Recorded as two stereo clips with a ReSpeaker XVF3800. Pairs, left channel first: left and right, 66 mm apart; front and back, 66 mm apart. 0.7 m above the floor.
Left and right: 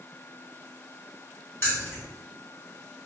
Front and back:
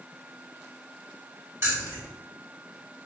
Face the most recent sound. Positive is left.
turn(degrees=140)